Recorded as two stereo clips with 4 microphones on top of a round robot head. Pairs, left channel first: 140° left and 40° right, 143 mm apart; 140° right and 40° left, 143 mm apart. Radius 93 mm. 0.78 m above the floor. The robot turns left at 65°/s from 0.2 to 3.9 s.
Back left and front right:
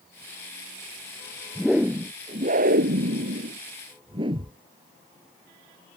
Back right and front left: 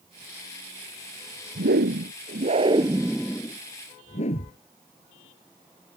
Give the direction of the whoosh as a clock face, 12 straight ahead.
10 o'clock.